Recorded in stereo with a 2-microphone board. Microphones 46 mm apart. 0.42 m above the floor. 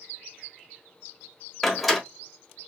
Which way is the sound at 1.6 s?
Centre (ahead or behind).